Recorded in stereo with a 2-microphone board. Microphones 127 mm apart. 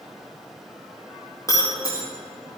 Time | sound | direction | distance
1.5 | breaking glass | 25° left (ahead or behind) | 4.5 m